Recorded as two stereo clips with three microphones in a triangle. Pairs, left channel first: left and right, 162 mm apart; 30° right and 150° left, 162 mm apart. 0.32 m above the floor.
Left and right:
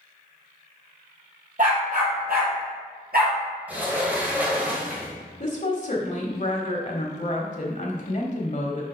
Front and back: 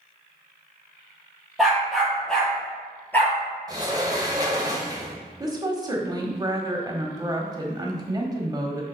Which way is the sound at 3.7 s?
165° right.